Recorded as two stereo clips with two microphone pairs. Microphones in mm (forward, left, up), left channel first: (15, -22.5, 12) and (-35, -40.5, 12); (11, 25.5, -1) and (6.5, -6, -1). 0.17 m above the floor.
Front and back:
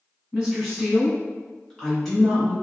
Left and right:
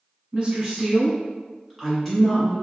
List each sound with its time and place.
0.3 s a woman speaking: 95° right, 1.3 m; by 2.5 s 75° left, 1.3 m